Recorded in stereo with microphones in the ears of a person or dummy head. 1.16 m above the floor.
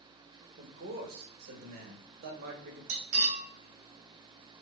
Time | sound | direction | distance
0.6 | a man speaking | 50° right (ahead or behind) | 1.0 m
2.9 | cutlery clinking | 50° right (ahead or behind) | 1.0 m